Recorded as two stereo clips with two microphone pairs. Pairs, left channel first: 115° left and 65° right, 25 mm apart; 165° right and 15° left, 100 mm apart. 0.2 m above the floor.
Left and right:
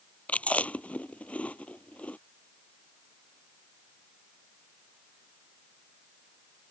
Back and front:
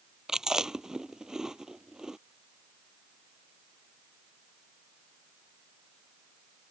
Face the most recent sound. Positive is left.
turn(degrees=100)